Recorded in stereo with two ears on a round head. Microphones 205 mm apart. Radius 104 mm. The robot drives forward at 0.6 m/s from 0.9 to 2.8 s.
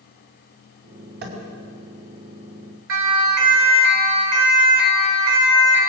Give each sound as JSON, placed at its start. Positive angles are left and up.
{"t": 1.2, "sound": "tapping", "side_deg": -50, "distance_m": 5.5}
{"t": 2.9, "sound": "a siren", "side_deg": -55, "distance_m": 3.5}